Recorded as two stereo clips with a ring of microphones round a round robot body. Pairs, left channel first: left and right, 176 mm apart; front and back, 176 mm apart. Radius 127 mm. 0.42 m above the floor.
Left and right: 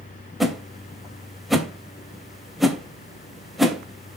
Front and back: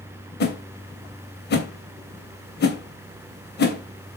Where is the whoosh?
Straight ahead, 2.5 m.